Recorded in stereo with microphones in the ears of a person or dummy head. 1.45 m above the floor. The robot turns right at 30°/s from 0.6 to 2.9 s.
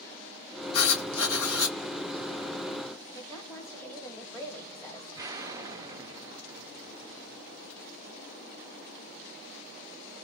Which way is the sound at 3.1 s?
10° left (ahead or behind).